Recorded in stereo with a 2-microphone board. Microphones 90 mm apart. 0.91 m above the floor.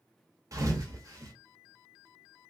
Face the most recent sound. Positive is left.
turn(degrees=-40)  # may be behind; listen again after turning